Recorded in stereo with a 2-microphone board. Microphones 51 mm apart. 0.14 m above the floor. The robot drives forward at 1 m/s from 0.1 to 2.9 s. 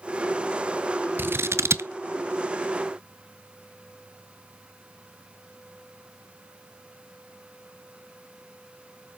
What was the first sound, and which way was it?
Scissors, 45° right (ahead or behind).